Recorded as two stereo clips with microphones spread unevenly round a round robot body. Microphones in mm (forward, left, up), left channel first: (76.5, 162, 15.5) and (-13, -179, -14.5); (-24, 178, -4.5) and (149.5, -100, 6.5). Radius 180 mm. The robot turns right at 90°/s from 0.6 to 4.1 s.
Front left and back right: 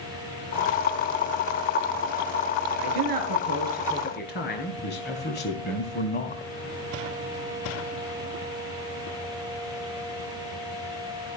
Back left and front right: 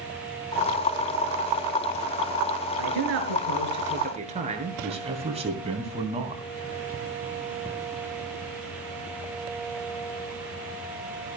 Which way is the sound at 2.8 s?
105° right.